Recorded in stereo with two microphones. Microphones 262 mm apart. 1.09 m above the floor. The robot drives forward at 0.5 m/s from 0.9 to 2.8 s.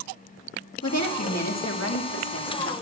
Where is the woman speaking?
80° left, 1.9 m; by 2.7 s 60° left (ahead or behind), 2 m.